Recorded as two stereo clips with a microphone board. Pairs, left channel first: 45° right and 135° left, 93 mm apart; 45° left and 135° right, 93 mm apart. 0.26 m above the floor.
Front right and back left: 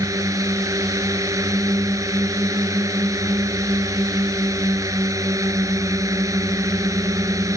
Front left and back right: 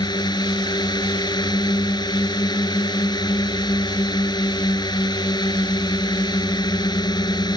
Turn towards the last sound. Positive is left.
turn(degrees=85)